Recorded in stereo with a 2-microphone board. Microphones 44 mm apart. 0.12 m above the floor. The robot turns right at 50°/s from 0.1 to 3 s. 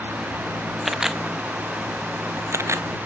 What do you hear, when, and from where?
0.8 s a camera shutter: centre (ahead or behind); by 2.9 s 75° right (ahead or behind)